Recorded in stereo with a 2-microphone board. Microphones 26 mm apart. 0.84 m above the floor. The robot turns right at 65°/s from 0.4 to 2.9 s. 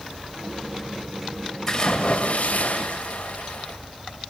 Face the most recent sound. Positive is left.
turn(degrees=100)